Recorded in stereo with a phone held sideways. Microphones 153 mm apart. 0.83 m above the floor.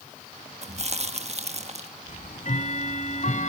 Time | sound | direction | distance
0.6 | chewing | 45° right (ahead or behind) | 1.2 m
2.1 | ticking | 55° left (ahead or behind) | 1.9 m